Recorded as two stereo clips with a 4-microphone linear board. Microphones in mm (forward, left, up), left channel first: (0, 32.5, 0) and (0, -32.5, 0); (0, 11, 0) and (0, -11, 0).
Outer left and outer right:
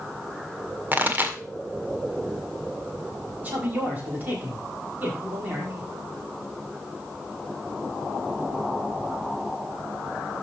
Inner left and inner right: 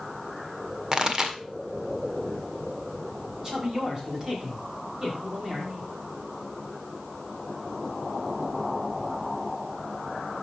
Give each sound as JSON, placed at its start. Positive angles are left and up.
{"t": 0.9, "sound": "a pop", "side_deg": -30, "distance_m": 1.6}
{"t": 3.4, "sound": "a woman speaking", "side_deg": -25, "distance_m": 5.5}